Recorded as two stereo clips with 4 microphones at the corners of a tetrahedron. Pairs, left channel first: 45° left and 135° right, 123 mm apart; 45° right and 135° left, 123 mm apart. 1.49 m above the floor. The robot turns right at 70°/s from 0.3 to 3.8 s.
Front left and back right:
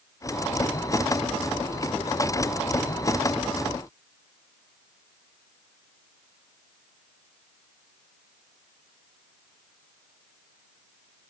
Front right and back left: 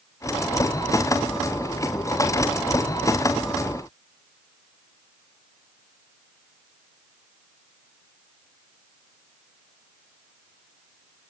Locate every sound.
Only background noise.